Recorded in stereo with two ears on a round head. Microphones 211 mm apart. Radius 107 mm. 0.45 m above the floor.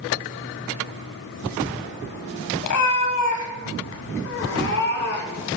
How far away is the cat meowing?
About 1.7 m.